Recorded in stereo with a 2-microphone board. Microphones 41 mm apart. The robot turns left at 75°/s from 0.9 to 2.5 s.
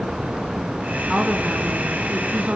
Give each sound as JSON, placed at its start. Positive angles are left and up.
{"t": 1.1, "sound": "a woman speaking", "azimuth_deg": -15, "distance_m": 1.9}